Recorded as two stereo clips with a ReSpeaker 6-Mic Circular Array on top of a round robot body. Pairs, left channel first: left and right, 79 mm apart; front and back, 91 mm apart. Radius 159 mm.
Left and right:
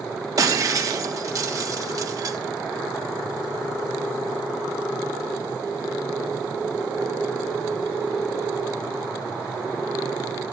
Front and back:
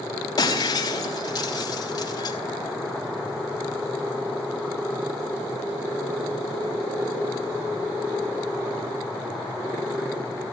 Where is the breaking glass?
45° right, 4 m.